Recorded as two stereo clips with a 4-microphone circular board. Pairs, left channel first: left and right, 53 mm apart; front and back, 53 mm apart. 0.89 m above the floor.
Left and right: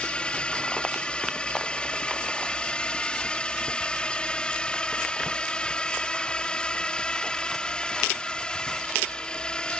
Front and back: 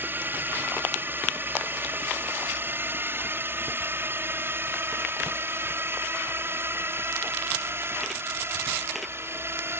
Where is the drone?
150° left; by 9.8 s 160° left.